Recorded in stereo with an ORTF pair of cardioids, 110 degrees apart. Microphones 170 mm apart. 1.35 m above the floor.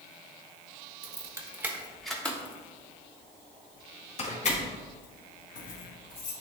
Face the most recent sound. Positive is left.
turn(degrees=55)